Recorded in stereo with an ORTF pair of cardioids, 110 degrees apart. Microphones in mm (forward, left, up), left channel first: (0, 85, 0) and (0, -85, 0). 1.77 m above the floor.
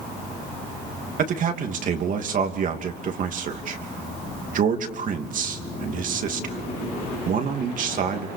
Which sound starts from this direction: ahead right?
A man speaking, at 1.2 s.